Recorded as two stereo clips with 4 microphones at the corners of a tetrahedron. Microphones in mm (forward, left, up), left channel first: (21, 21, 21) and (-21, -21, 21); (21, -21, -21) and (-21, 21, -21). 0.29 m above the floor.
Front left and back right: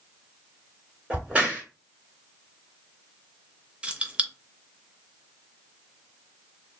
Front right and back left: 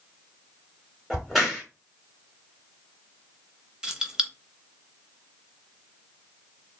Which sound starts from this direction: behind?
Keys jangling, at 3.8 s.